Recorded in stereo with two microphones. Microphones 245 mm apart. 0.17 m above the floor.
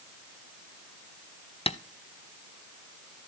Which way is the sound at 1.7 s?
25° left (ahead or behind).